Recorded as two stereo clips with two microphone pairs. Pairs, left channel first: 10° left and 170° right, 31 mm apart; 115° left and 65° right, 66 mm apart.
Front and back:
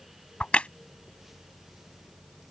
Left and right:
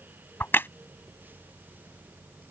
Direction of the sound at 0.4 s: 60° left.